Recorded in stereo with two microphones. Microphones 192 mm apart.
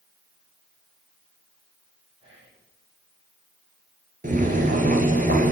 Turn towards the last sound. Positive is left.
turn(degrees=-45)  # may be behind; listen again after turning